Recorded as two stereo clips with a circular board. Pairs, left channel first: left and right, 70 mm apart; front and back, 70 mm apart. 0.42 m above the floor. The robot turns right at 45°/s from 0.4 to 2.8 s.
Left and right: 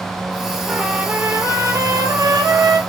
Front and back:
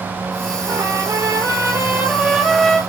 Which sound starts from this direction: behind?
A trumpet, at 0.7 s.